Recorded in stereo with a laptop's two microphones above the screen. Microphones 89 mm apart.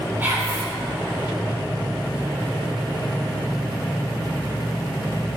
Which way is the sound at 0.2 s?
25° right (ahead or behind).